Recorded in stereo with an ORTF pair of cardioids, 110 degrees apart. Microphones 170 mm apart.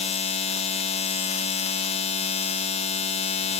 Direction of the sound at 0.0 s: 40° left.